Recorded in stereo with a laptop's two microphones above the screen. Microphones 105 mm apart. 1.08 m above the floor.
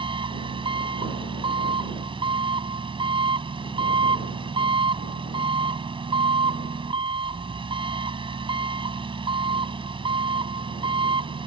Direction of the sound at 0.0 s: 55° right (ahead or behind).